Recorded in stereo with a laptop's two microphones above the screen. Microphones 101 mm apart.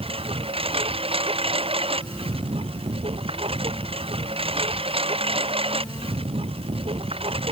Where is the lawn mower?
70° right (ahead or behind).